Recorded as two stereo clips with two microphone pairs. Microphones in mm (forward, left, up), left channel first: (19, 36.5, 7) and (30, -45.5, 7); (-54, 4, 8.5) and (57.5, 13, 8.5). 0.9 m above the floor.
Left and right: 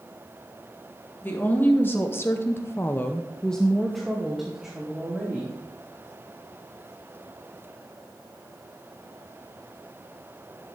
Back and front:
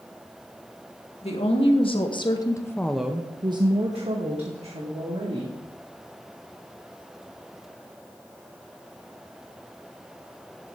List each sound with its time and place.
1.2 s a woman speaking: 165° left, 1.7 m; by 5.6 s straight ahead, 2.5 m